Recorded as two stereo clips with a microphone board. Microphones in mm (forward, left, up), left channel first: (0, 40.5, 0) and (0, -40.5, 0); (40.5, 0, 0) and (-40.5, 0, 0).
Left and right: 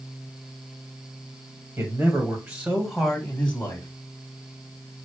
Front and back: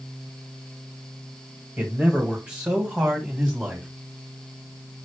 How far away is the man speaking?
About 1.8 m.